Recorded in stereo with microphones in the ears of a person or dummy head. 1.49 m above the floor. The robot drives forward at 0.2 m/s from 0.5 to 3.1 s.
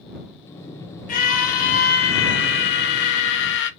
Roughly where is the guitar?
No guitar in this recording.